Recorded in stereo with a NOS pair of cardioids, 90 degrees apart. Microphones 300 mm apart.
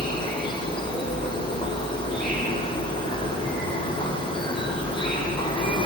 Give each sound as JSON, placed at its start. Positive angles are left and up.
{"t": 0.0, "sound": "an insect", "azimuth_deg": 15, "distance_m": 5.0}